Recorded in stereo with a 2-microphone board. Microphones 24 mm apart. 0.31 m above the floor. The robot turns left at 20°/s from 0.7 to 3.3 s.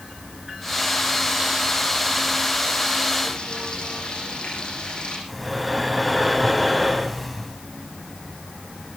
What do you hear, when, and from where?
3.2 s frying: 50° left (ahead or behind), 6.5 m
5.3 s breathing: centre (ahead or behind), 2.0 m